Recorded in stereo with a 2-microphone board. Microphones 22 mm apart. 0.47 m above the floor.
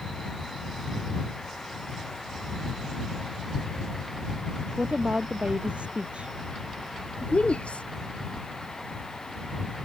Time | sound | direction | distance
4.8 | a woman speaking | 70° right (ahead or behind) | ?
7.2 | a woman speaking | 70° left (ahead or behind) | ?